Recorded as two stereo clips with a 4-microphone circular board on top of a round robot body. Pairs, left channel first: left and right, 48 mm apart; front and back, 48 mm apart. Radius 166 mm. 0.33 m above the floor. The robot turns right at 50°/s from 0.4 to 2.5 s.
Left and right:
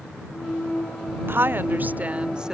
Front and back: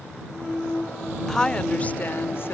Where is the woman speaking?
80° right; by 2.5 s 20° right.